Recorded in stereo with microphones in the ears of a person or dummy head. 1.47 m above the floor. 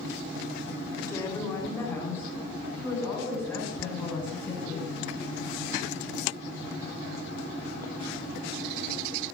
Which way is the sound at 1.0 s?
15° left (ahead or behind).